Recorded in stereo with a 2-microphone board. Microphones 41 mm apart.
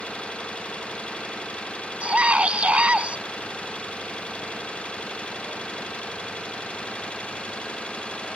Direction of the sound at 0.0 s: 30° left (ahead or behind).